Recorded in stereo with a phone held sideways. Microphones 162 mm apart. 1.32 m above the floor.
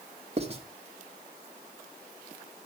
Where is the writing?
40° right (ahead or behind), 1.3 m.